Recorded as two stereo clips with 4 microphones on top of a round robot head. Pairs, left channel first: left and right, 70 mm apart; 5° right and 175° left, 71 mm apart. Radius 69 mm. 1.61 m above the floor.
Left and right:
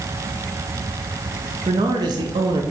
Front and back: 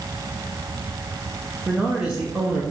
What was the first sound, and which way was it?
A man speaking, 105° right.